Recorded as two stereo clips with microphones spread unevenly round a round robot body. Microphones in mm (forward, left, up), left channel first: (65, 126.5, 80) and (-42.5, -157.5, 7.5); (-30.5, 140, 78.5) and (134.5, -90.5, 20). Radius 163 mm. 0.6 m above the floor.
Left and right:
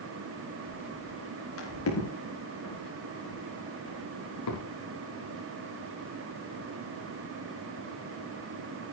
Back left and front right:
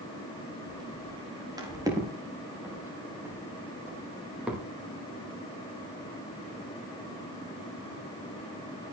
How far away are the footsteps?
About 8.5 m.